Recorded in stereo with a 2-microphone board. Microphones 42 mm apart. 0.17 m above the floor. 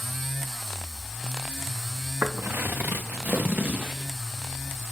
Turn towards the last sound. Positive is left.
turn(degrees=-30)  # may be behind; listen again after turning